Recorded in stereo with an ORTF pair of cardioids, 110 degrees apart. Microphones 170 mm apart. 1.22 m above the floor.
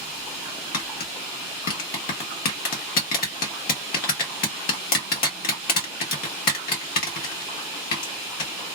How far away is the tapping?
About 1.4 m.